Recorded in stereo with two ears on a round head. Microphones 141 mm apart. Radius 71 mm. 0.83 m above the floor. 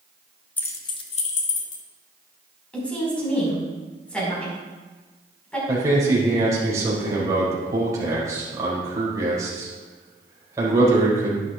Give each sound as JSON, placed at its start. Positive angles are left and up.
{"t": 0.6, "sound": "keys jangling", "side_deg": 10, "distance_m": 0.6}
{"t": 2.7, "sound": "a woman speaking", "side_deg": 10, "distance_m": 5.0}
{"t": 5.7, "sound": "a man speaking", "side_deg": -20, "distance_m": 4.0}